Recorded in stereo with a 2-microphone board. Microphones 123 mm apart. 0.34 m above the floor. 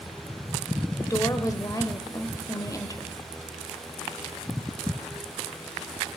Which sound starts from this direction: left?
A woman speaking, at 1.0 s.